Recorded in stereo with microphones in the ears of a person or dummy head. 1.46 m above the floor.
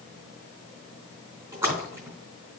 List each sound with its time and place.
1.5 s a splash: 15° right (ahead or behind), 3.5 m